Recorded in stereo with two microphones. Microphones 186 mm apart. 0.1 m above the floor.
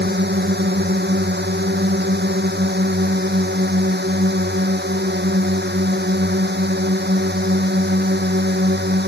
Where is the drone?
65° right (ahead or behind).